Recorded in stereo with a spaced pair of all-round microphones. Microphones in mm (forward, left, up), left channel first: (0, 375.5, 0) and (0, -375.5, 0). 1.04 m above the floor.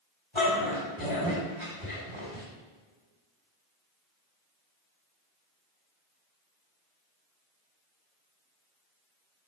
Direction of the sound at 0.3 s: 45° left (ahead or behind).